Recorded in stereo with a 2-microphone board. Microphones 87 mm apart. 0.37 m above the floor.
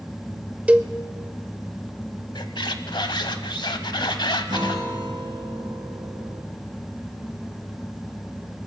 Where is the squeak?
65° left (ahead or behind), 0.8 m.